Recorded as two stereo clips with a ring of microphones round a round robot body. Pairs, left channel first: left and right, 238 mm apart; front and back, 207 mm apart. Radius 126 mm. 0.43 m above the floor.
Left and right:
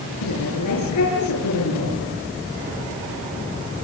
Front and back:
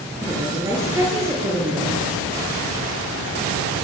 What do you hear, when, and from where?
0.2 s a woman speaking: 105° left, 6.5 m